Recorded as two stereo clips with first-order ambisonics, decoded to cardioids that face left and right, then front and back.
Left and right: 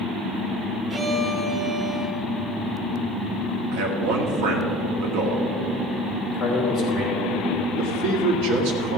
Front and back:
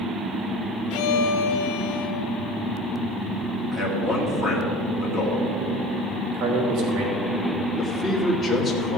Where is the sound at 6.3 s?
170° left, 3.5 m.